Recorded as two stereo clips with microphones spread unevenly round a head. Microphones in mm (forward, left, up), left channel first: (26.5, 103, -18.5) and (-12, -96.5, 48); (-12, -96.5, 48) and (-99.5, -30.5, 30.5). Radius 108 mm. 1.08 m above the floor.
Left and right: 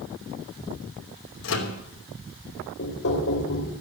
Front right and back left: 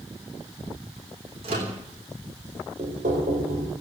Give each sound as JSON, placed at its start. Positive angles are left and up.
{"t": 1.4, "sound": "a microwave", "azimuth_deg": 95, "distance_m": 3.0}
{"t": 2.8, "sound": "knocking", "azimuth_deg": 115, "distance_m": 3.5}